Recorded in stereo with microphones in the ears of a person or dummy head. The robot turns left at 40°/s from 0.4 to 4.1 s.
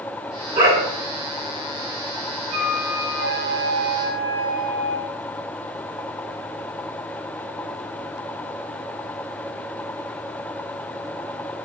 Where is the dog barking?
15° right (ahead or behind), 1.4 m; by 0.9 s 25° right (ahead or behind), 1.4 m.